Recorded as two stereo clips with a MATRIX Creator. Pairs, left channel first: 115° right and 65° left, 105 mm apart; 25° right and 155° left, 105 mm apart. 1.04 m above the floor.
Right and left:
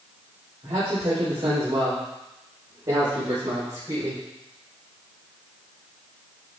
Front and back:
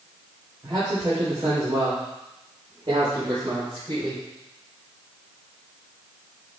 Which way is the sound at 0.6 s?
110° left.